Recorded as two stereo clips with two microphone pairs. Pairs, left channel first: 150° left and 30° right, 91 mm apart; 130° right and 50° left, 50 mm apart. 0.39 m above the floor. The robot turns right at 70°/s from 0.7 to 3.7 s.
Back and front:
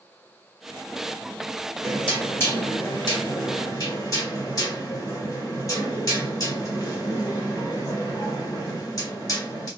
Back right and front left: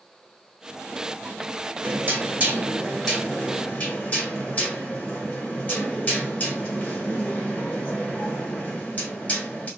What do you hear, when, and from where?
1.8 s knocking: 55° left, 1.7 m; by 9.7 s 170° right, 1.7 m